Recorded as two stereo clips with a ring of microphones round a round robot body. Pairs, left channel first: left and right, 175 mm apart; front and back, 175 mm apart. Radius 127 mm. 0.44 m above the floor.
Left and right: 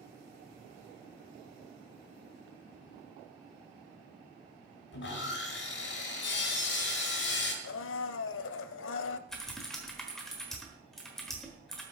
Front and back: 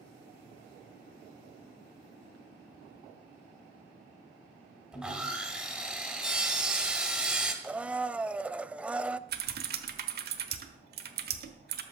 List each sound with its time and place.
4.9 s sawing: 95° left, 2.5 m
7.6 s a blender: 95° left, 0.5 m
9.3 s typing on a keyboard: straight behind, 1.1 m